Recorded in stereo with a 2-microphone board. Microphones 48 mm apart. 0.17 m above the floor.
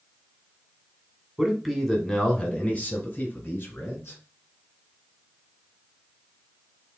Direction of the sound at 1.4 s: 5° right (ahead or behind).